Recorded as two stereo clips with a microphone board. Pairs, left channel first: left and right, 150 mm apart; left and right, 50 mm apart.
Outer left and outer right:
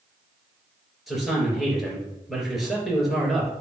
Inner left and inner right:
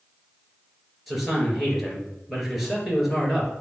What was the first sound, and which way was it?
A man speaking, centre (ahead or behind).